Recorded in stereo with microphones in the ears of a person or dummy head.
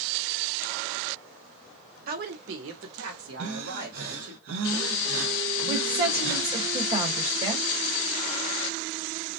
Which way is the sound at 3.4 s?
60° right (ahead or behind).